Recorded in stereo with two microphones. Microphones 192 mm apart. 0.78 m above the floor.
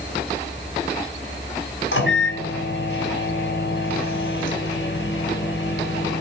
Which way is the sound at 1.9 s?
85° left.